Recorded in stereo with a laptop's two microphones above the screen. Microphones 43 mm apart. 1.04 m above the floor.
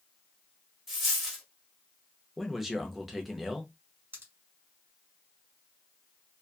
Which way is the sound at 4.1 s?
70° right (ahead or behind).